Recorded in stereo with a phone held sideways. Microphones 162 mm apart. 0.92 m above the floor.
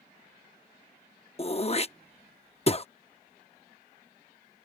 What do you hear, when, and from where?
1.4 s throat clearing: 40° left (ahead or behind)